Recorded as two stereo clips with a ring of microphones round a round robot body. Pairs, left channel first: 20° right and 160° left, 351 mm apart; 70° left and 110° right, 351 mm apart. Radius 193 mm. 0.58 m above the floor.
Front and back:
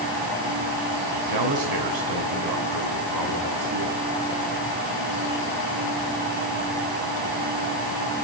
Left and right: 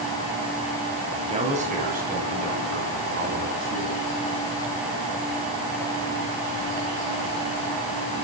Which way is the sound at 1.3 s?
175° left.